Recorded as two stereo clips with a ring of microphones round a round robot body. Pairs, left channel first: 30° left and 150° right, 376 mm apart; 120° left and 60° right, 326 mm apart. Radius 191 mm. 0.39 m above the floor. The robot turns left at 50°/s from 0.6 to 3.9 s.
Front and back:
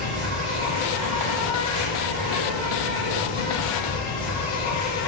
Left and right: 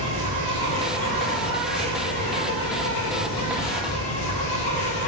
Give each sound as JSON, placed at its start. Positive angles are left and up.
{"t": 0.0, "sound": "an insect", "azimuth_deg": -90, "distance_m": 1.6}